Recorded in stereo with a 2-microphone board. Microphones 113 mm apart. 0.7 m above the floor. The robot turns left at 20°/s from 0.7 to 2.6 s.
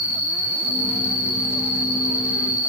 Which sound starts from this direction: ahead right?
An insect, at 0.0 s.